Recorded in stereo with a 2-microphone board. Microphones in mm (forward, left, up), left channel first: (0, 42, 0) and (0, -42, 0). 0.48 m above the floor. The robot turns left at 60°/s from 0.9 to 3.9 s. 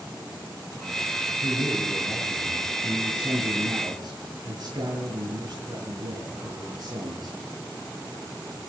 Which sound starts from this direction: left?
A man speaking, at 1.4 s.